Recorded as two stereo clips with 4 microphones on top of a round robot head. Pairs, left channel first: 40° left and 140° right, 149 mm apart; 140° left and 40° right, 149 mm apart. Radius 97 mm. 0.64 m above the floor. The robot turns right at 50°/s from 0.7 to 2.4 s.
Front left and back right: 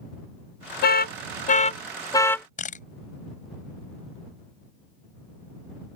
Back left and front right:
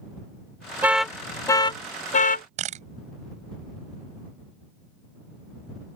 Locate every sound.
0.8 s an alarm: 40° left; by 2.5 s 115° left
2.6 s a camera shutter: straight ahead